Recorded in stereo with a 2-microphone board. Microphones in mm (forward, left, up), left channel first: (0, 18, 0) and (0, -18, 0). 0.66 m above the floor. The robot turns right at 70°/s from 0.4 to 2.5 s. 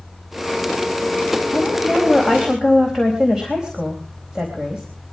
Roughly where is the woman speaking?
Behind left.